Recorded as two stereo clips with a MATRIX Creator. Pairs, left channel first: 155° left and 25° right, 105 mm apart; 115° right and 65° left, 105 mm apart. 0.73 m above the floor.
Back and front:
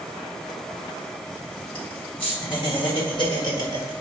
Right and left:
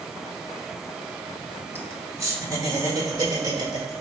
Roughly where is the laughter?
Behind left.